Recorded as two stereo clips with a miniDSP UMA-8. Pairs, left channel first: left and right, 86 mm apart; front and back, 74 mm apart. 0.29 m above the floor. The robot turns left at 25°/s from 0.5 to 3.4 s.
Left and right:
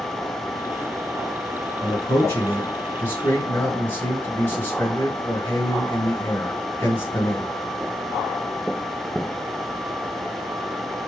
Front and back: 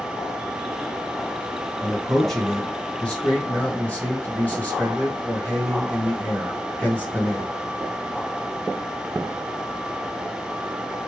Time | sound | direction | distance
1.8 | a man speaking | 90° left | 1.5 m